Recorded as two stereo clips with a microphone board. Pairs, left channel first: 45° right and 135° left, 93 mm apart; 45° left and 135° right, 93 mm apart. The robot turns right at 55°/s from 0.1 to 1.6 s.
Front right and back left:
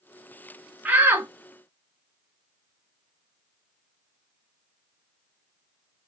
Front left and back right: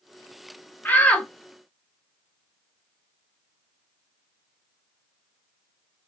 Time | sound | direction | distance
0.8 | a shout | 90° left | 1.0 m